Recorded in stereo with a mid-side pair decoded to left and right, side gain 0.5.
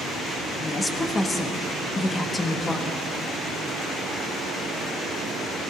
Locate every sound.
0.6 s a woman speaking: 25° left, 1.3 m